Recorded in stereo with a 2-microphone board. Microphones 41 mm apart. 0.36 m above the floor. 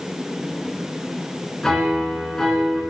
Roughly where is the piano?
Centre.